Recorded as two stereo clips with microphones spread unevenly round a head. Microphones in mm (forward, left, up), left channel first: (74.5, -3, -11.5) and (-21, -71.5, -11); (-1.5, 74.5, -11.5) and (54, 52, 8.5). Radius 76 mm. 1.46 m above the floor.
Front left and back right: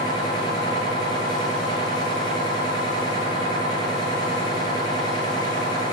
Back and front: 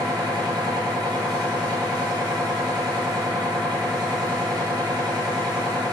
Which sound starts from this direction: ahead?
A machine running, at 0.0 s.